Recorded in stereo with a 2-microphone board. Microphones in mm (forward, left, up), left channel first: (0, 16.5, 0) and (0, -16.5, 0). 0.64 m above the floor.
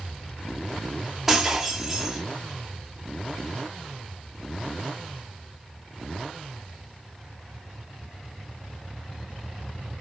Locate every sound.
1.3 s breaking glass: 10° right (ahead or behind), 1.1 m